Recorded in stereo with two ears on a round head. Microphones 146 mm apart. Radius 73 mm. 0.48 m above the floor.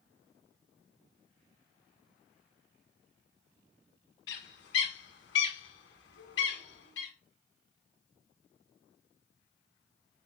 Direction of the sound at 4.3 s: 75° left (ahead or behind).